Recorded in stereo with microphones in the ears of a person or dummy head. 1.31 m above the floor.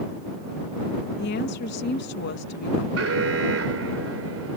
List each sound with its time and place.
1.2 s a woman speaking: 60° left (ahead or behind)
3.0 s an alarm: 85° right